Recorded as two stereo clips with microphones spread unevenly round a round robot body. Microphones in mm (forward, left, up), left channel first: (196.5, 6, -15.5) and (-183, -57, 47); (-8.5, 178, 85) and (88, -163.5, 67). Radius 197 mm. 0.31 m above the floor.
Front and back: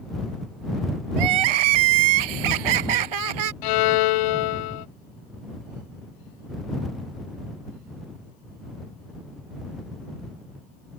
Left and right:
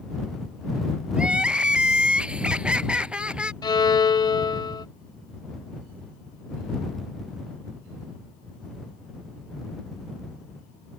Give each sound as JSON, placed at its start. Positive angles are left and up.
{"t": 1.2, "sound": "crying", "azimuth_deg": -160}
{"t": 3.6, "sound": "a violin", "azimuth_deg": 25}